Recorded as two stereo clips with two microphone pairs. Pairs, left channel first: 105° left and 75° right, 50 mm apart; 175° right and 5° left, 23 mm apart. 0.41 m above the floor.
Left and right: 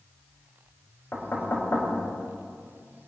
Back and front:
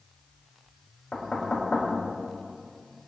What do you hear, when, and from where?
1.1 s knocking: 140° left, 4.5 m